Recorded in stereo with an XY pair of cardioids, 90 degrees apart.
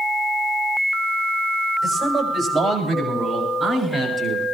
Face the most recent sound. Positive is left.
turn(degrees=-45)